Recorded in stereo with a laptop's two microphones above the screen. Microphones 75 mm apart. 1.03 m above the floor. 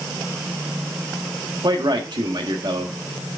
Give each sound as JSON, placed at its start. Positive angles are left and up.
{"t": 1.6, "sound": "a man speaking", "side_deg": -80, "distance_m": 1.5}